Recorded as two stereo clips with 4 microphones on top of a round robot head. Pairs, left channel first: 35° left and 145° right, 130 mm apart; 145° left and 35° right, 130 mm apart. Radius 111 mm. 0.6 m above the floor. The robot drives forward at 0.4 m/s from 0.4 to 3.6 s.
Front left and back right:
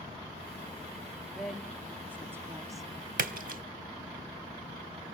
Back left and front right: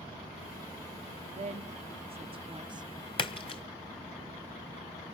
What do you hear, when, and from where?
1.3 s a woman speaking: 55° right, 1.3 m; by 2.9 s 85° right, 1.1 m
3.2 s a splash: 160° right, 0.9 m; by 3.6 s 165° right, 1.0 m